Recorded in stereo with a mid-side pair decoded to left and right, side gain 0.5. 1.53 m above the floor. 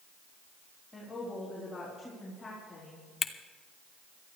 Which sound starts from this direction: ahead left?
A camera shutter, at 3.2 s.